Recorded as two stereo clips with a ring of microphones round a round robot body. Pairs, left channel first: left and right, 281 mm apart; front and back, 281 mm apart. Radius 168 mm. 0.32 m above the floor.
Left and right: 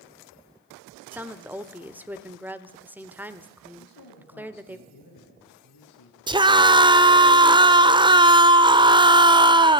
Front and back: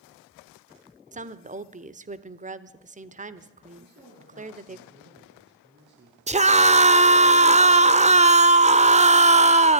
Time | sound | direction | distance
1.1 | a woman speaking | 165° right | 1.0 m
3.8 | a man speaking | 125° left | 7.5 m
6.3 | a scream | 145° right | 1.2 m